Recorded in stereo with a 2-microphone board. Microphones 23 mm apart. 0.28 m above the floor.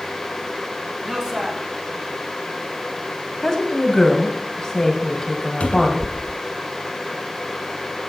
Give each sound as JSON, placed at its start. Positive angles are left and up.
{"t": 1.0, "sound": "a man speaking", "side_deg": -35, "distance_m": 2.0}
{"t": 3.4, "sound": "a woman speaking", "side_deg": 15, "distance_m": 1.7}
{"t": 5.6, "sound": "a cupboard door", "side_deg": 70, "distance_m": 0.9}